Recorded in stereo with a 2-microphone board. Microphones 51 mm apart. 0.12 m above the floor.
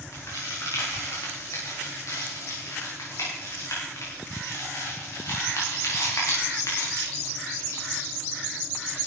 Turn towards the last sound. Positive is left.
turn(degrees=80)